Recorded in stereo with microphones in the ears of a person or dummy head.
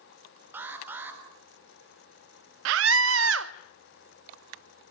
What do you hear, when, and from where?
0.5 s an alarm: 10° right (ahead or behind), 4 m
2.6 s a scream: 75° right (ahead or behind), 0.8 m